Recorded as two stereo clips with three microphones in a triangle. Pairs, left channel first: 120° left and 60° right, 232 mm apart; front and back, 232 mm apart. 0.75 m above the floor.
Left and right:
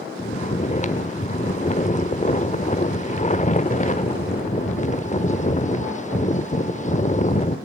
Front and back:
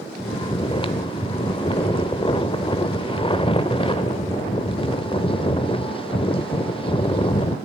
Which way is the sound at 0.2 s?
65° left.